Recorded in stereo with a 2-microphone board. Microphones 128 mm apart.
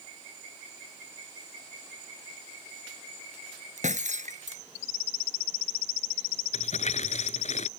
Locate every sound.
3.8 s breaking glass: 70° right (ahead or behind)
6.5 s crumpling: 60° left (ahead or behind)